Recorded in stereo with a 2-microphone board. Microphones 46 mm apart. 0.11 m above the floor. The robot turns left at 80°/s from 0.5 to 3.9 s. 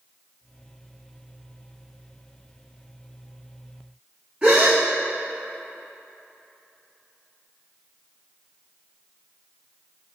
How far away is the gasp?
About 1.4 m.